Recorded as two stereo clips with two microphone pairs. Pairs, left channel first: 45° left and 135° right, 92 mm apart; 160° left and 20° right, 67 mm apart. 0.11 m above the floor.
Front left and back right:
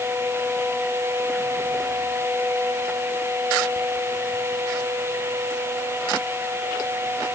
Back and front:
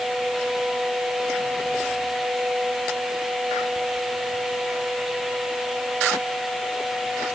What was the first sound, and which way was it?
Only background noise.